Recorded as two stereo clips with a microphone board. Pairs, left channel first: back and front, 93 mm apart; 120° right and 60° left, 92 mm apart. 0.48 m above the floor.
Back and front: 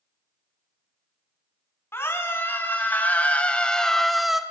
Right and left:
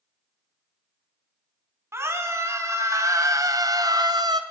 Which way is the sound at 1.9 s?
120° left.